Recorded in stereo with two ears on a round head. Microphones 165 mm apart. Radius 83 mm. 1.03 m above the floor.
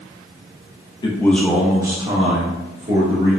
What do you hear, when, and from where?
1.0 s a man speaking: 25° left (ahead or behind), 0.5 m; by 3.4 s 45° right (ahead or behind), 1.3 m